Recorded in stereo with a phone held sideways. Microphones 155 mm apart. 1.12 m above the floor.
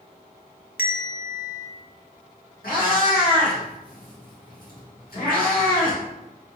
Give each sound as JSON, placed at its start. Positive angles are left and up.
{"t": 0.8, "sound": "a bell", "side_deg": 75, "distance_m": 0.6}
{"t": 2.6, "sound": "a cat meowing", "side_deg": 70, "distance_m": 1.5}